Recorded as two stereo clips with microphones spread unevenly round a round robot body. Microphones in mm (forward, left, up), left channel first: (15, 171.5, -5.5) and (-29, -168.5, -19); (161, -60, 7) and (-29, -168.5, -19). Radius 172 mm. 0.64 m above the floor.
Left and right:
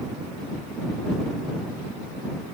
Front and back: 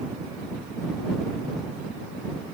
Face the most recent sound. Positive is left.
No sound to turn to.